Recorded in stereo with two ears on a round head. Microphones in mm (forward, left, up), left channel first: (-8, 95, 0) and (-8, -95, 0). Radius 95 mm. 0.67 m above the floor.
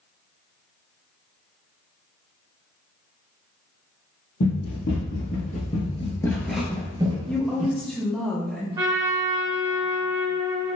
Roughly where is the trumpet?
Centre.